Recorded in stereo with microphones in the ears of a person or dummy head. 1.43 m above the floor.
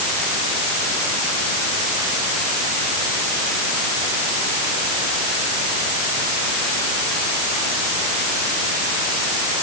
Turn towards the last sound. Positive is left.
No sound to turn to.